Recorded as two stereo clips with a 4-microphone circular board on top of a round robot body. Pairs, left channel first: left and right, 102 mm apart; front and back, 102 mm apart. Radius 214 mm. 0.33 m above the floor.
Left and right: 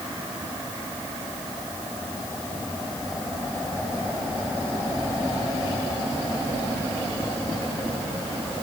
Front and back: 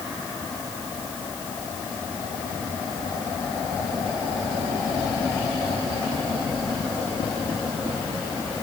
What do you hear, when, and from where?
Only background noise.